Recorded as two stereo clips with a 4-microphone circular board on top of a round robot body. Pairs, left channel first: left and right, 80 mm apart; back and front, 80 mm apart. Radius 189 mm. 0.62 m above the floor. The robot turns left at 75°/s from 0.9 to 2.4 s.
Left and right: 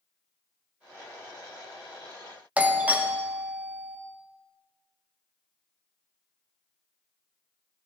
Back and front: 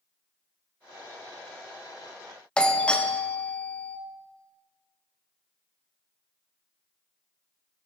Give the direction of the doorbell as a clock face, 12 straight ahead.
4 o'clock.